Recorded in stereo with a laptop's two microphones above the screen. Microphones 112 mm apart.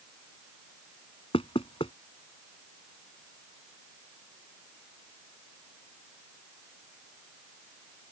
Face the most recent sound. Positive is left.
turn(degrees=55)  # may be behind; listen again after turning